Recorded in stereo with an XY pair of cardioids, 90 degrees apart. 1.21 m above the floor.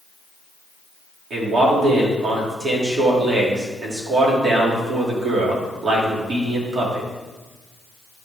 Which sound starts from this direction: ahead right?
A man speaking, at 1.3 s.